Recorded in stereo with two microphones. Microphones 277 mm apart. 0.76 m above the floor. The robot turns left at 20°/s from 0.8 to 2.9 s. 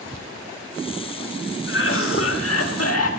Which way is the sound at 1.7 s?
45° left (ahead or behind).